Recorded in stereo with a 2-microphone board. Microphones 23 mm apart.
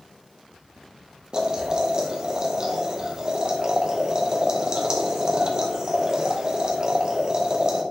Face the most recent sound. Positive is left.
turn(degrees=-30)  # may be behind; listen again after turning